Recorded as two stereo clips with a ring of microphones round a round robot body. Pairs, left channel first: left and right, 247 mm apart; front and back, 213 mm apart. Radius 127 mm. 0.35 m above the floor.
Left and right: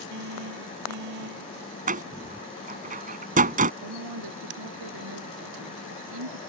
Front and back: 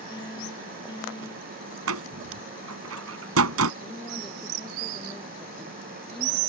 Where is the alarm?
75° right.